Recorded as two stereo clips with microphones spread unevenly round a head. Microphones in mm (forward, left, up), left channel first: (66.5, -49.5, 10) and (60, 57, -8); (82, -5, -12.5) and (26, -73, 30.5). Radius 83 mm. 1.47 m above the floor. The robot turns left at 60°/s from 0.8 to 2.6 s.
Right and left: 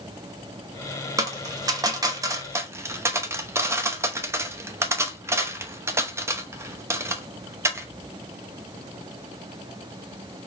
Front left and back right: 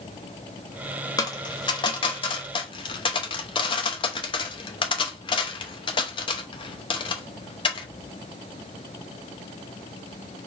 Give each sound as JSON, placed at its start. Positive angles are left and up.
{"t": 1.2, "sound": "a dropped coin", "azimuth_deg": 130, "distance_m": 0.8}